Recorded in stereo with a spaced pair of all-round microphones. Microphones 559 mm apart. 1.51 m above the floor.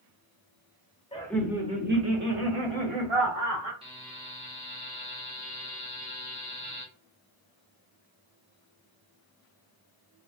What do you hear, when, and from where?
1.1 s laughter: 10° left (ahead or behind), 0.9 m; by 3.7 s 75° right (ahead or behind), 1.3 m
3.8 s a buzzer: 10° right (ahead or behind), 0.9 m